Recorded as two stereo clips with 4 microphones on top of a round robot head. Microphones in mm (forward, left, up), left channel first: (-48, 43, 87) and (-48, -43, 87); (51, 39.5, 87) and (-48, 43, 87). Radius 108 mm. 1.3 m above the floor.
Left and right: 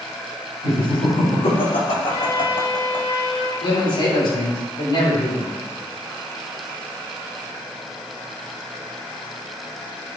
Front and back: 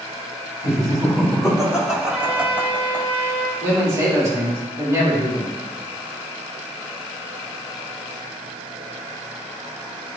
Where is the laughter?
90° left, 3.5 m; by 3.1 s 110° left, 1.3 m.